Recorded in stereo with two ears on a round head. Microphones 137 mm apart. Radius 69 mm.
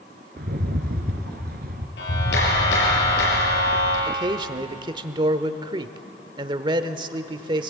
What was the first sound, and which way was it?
A rattle, 65° right (ahead or behind).